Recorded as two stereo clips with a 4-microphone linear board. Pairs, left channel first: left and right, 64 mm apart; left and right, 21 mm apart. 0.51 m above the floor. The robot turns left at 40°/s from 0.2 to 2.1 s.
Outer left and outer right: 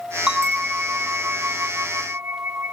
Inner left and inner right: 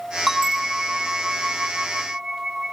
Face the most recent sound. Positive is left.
turn(degrees=-100)